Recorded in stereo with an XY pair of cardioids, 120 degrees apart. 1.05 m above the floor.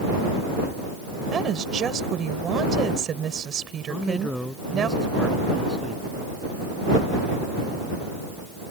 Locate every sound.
1.3 s a woman speaking: 45° right
3.9 s a man speaking: 5° left